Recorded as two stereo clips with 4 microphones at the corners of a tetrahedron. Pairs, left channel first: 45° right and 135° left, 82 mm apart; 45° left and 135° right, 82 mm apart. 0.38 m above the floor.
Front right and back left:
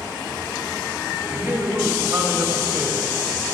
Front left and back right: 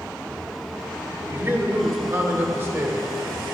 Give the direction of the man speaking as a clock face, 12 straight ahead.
6 o'clock.